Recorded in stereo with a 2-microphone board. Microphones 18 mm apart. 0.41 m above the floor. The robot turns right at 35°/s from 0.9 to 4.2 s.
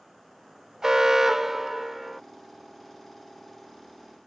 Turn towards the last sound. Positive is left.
turn(degrees=65)